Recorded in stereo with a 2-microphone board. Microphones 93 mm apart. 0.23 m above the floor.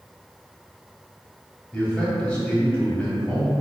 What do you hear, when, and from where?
1.7 s a man speaking: 15° left (ahead or behind), 1.2 m